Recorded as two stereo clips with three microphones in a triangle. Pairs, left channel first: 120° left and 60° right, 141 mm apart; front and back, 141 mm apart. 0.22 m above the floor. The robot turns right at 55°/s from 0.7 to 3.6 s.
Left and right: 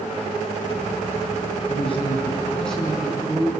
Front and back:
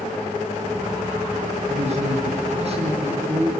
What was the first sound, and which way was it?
A man speaking, 150° left.